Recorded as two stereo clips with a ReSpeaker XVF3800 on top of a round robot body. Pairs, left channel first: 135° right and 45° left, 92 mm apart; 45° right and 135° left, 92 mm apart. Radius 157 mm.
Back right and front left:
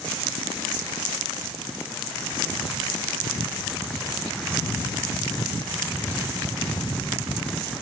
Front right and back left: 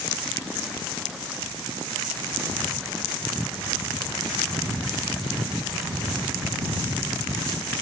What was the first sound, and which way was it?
Only background noise.